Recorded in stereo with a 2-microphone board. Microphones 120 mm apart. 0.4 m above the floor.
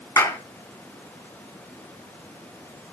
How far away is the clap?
About 5 m.